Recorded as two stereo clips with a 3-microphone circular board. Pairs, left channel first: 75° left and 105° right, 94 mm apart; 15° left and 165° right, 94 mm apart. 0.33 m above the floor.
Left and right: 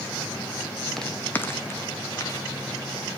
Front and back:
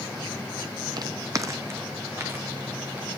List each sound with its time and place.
1.0 s footsteps: 165° left, 0.6 m; by 3.1 s 130° left, 2.5 m